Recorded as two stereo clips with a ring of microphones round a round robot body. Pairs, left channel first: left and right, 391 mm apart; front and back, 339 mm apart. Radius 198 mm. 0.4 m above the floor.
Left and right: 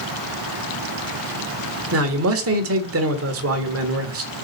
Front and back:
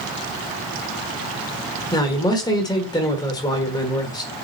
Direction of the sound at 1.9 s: 70° right.